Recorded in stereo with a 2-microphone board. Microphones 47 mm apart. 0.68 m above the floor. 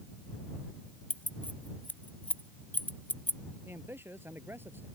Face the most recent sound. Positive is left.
turn(degrees=-50)  # may be behind; listen again after turning